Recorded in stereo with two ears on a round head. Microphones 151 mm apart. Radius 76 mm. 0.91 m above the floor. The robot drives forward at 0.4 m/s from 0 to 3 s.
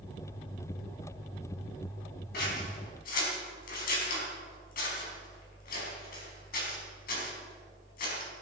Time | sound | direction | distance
2.3 | scissors | 60° left (ahead or behind) | 4.5 m